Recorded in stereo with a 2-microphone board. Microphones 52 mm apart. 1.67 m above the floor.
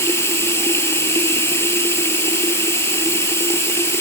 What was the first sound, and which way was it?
Running water, 50° left (ahead or behind).